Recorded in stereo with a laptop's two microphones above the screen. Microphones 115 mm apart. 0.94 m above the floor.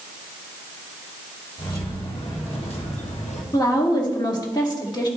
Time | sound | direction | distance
1.6 | keys jangling | 50° left (ahead or behind) | 2.0 m
3.5 | a woman speaking | 35° left (ahead or behind) | 1.6 m